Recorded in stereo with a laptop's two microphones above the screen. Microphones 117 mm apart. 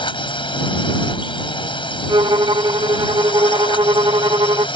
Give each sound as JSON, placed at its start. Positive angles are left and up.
{"t": 0.0, "sound": "a drone", "side_deg": 45}
{"t": 2.1, "sound": "a violin", "side_deg": -45}